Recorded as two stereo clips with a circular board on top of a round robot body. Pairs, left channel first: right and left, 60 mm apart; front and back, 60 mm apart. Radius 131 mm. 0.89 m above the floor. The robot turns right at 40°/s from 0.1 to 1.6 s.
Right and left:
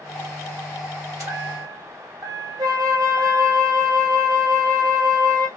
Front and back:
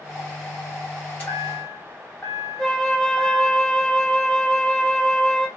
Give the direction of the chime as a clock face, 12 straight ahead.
10 o'clock.